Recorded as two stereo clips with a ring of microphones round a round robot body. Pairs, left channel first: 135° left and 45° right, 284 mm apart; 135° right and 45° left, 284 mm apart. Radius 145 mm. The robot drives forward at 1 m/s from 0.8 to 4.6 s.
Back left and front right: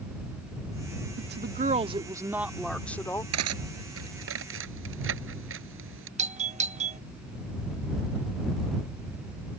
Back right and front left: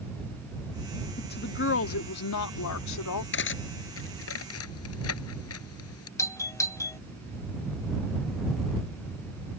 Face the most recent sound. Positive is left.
turn(degrees=-70)